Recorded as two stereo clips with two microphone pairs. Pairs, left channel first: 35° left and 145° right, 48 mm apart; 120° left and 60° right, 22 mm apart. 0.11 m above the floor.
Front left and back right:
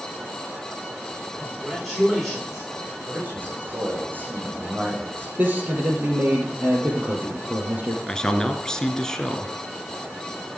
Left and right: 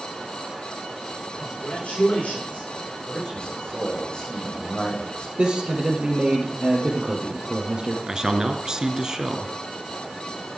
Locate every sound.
1.3 s a man speaking: 125° left, 10 m
3.1 s a man speaking: 165° left, 6.5 m
5.4 s a man speaking: 100° right, 3.5 m
8.1 s a man speaking: 30° right, 1.6 m